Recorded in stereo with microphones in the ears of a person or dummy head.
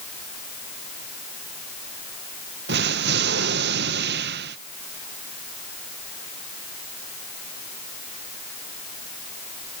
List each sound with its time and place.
2.7 s an explosion: 55° right (ahead or behind)